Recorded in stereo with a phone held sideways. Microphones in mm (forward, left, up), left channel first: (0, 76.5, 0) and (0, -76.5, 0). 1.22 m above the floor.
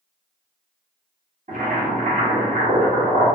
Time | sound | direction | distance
1.5 | boiling | 55° right (ahead or behind) | 1.2 m